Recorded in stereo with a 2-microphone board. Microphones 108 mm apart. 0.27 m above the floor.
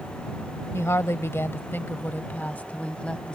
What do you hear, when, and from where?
0.7 s a woman speaking: 25° left (ahead or behind); by 3.4 s 10° left (ahead or behind)